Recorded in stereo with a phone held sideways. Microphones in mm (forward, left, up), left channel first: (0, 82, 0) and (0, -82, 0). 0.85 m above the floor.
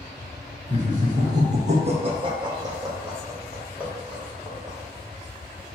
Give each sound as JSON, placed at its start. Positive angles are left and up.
{"t": 0.7, "sound": "laughter", "side_deg": -45, "distance_m": 1.3}